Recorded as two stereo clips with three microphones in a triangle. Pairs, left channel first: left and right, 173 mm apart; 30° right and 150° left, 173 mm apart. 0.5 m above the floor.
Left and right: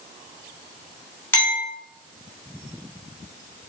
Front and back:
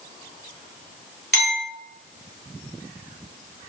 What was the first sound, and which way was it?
A clink, 165° left.